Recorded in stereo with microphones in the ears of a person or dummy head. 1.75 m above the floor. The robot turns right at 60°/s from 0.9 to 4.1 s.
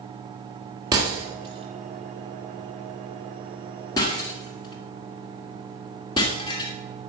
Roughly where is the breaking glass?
Centre.